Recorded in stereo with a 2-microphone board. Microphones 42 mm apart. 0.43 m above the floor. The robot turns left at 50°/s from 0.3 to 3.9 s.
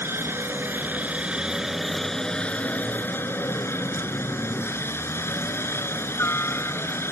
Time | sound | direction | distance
0.0 | a helicopter | 70° right (ahead or behind) | ?